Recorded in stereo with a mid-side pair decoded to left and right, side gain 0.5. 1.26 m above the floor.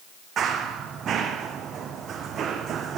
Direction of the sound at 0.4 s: 55° right.